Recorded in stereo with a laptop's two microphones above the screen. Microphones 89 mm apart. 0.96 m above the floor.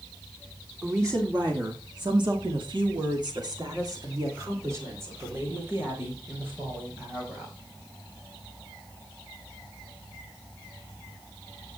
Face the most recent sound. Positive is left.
turn(degrees=-20)  # may be behind; listen again after turning